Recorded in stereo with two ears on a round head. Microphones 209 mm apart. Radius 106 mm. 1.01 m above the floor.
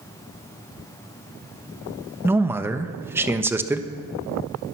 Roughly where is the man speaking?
Centre.